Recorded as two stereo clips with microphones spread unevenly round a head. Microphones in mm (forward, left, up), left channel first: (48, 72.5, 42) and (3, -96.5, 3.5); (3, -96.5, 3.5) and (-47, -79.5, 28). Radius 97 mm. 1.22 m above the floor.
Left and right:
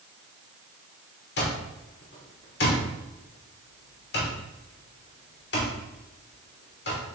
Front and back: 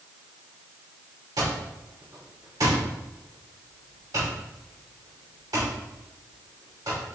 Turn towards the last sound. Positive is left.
turn(degrees=110)